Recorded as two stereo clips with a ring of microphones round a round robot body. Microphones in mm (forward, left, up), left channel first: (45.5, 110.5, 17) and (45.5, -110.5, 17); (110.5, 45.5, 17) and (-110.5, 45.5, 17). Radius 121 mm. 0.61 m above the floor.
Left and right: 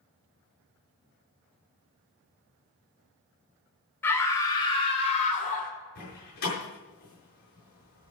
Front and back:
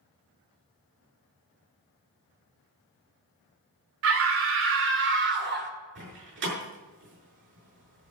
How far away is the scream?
About 2 m.